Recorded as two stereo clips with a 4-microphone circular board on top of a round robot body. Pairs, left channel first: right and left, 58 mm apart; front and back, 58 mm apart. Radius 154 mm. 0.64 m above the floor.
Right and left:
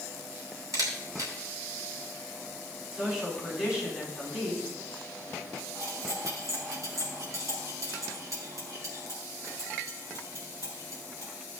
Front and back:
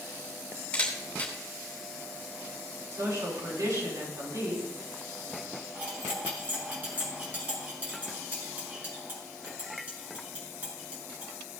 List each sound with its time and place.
0.7 s a camera shutter: 70° left, 3 m
2.9 s a woman speaking: 170° left, 5.5 m
5.8 s cutlery clinking: 120° left, 4 m